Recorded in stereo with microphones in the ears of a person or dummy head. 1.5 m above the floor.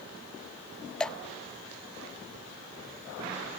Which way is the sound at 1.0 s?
5° left (ahead or behind).